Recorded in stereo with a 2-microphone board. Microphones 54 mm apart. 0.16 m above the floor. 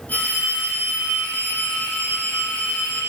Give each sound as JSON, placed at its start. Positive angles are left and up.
{"t": 0.1, "sound": "a phone ringing", "side_deg": 30, "distance_m": 4.5}